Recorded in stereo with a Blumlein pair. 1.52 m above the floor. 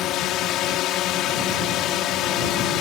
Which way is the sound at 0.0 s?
35° left.